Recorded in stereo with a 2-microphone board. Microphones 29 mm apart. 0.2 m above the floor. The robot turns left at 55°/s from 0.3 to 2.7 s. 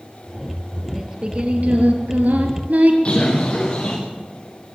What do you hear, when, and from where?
0.9 s singing: 15° right, 4 m; by 3.0 s 110° right, 4 m
3.0 s a bird: 40° left (ahead or behind), 7 m